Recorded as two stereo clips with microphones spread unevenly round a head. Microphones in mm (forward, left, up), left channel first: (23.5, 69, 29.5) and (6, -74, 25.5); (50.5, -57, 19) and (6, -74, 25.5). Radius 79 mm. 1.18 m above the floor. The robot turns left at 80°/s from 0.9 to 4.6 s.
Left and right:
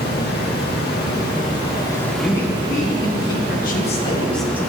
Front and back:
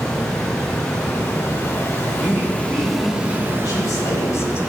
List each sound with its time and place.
0.0 s running water: 95° left, 1.4 m; by 4.7 s 160° left, 1.4 m
2.2 s a man speaking: 175° left, 1.0 m; by 4.6 s 20° right, 1.0 m